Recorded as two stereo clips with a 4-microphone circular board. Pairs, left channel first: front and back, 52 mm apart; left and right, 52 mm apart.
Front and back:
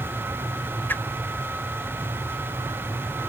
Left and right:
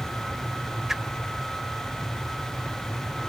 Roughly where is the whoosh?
Ahead.